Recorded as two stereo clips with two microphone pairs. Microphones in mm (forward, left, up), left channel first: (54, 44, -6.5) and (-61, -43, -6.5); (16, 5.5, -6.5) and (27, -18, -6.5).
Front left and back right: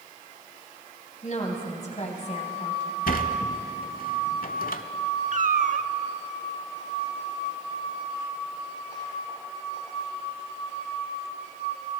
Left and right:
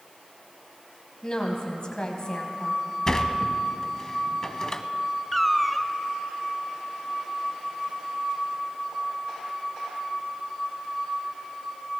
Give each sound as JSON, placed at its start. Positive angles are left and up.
{"t": 1.2, "sound": "a woman speaking", "azimuth_deg": 65, "distance_m": 2.5}
{"t": 3.1, "sound": "a sliding door", "azimuth_deg": 50, "distance_m": 0.7}
{"t": 5.3, "sound": "a cat meowing", "azimuth_deg": -160, "distance_m": 0.6}